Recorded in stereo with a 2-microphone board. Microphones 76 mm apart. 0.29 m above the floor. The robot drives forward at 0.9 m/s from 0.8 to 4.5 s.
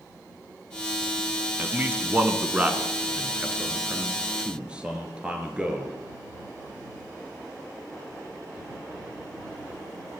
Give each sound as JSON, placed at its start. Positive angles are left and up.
{"t": 1.6, "sound": "a man speaking", "side_deg": -25, "distance_m": 2.5}